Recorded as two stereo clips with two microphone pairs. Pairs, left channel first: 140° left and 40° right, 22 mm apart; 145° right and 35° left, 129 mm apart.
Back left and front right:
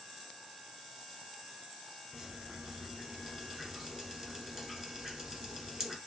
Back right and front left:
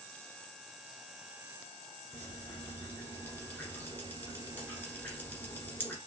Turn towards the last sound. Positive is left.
turn(degrees=-85)